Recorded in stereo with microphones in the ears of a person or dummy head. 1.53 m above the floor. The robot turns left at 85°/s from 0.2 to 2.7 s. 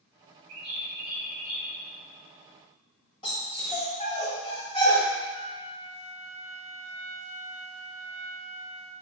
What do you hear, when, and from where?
0.5 s a bird: 85° right, 3 m; by 1.7 s 175° left, 3 m
3.2 s a dog barking: 25° left (ahead or behind), 2 m
5.3 s a flute: 30° left (ahead or behind), 0.8 m